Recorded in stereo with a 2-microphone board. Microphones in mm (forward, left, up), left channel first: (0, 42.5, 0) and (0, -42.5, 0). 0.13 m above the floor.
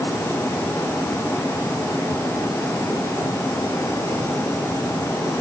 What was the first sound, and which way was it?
Only background noise.